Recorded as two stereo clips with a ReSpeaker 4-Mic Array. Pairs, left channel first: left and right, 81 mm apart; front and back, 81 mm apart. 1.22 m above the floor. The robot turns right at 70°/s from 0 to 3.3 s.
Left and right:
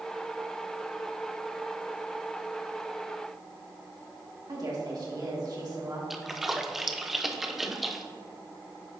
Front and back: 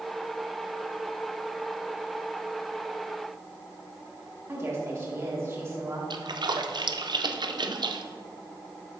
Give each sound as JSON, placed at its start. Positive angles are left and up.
{"t": 4.5, "sound": "a woman speaking", "azimuth_deg": -125, "distance_m": 2.0}
{"t": 6.1, "sound": "a splash", "azimuth_deg": -175, "distance_m": 0.5}